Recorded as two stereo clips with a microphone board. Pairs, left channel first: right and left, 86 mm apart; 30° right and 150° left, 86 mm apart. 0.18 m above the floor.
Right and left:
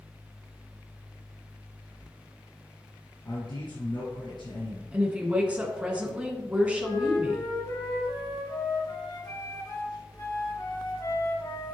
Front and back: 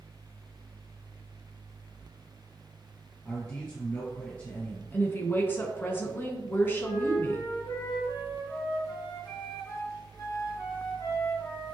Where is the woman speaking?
25° left, 1.8 m.